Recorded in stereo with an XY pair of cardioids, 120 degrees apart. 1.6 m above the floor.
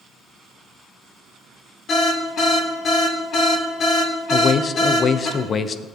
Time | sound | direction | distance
1.9 | an alarm | 55° left | 3.5 m
4.3 | a man speaking | 40° left | 0.7 m